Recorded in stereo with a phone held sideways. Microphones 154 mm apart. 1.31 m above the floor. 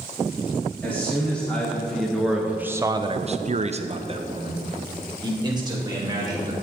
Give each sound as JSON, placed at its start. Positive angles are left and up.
{"t": 0.8, "sound": "a man speaking", "side_deg": 10, "distance_m": 2.0}